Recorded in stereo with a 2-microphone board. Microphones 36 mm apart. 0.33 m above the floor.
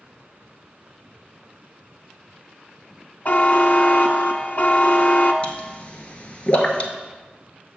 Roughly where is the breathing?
I don't hear breathing.